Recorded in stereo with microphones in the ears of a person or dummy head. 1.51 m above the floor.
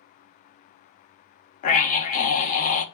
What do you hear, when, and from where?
1.6 s a scream: 45° left (ahead or behind), 1.2 m